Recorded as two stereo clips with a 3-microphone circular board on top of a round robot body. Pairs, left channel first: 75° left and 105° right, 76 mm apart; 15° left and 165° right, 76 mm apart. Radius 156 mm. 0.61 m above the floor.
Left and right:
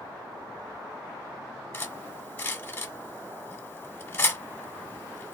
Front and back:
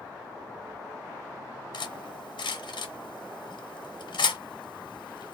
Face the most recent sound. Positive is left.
turn(degrees=10)